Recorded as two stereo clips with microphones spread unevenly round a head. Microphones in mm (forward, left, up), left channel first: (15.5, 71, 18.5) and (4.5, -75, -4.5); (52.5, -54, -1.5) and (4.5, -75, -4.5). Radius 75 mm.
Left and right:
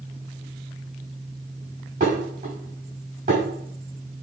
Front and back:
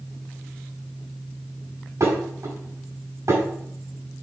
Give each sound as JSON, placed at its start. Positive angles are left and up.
{"t": 2.0, "sound": "dishes clattering", "azimuth_deg": -135, "distance_m": 5.0}